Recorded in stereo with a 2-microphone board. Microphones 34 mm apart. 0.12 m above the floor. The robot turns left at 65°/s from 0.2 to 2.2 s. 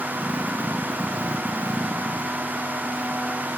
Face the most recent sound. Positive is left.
No sound to turn to.